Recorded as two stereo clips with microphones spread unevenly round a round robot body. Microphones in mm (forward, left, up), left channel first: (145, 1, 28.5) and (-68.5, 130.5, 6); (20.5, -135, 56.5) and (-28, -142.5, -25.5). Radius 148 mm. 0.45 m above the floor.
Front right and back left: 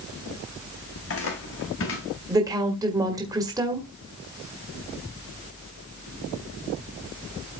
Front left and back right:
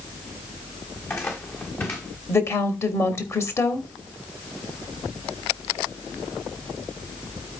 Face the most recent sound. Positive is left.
turn(degrees=-155)